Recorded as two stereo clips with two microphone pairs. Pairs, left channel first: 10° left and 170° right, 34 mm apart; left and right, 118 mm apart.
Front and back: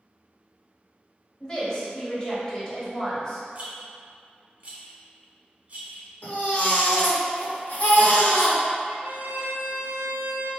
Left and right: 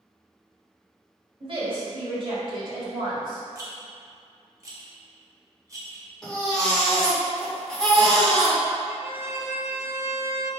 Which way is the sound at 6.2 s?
5° left.